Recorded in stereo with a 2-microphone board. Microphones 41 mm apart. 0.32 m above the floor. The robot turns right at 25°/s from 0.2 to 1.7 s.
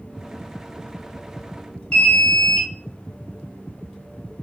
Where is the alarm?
25° left (ahead or behind), 1.2 m.